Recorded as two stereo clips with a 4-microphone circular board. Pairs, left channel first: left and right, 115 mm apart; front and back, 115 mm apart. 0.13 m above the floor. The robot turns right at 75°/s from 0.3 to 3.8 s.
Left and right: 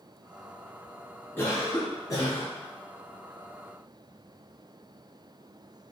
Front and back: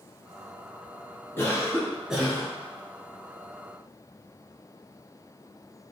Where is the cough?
40° left, 1.3 m; by 2.5 s 130° left, 1.3 m.